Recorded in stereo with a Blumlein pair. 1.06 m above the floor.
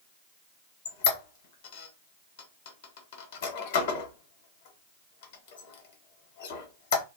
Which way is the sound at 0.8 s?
55° left.